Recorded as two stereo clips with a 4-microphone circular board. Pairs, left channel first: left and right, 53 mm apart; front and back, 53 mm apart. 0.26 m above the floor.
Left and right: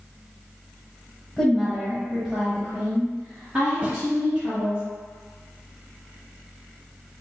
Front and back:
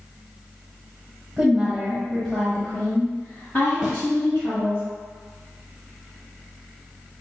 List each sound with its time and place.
1.4 s a woman speaking: 160° left, 1.0 m; by 4.8 s 30° right, 1.7 m
3.8 s a snare drum: 110° right, 1.0 m